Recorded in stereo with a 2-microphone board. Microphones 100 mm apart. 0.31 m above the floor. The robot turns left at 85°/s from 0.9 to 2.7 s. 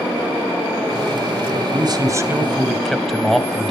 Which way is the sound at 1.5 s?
80° right.